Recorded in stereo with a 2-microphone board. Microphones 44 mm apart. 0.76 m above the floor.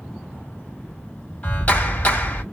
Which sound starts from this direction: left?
A clap, at 1.4 s.